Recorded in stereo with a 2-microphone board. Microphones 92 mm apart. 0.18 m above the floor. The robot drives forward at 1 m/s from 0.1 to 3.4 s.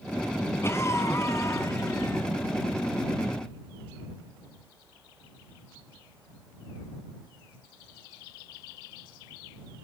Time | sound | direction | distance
0.6 | a cough | 30° left (ahead or behind) | 2 m